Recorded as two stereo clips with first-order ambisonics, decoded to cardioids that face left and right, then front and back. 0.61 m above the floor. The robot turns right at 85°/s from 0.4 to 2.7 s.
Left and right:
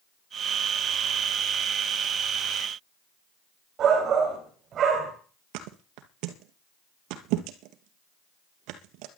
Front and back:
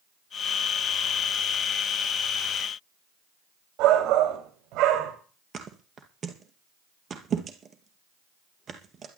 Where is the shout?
145° right, 3 m.